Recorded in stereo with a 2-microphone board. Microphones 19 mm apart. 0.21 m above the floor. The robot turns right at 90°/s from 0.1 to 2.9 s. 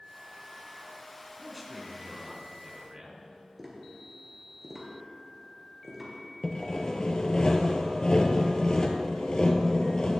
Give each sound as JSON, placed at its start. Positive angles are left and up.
{"t": 1.4, "sound": "a man speaking", "azimuth_deg": 160, "distance_m": 1.9}
{"t": 3.6, "sound": "tapping", "side_deg": -15, "distance_m": 3.0}
{"t": 6.4, "sound": "sawing", "side_deg": 45, "distance_m": 1.0}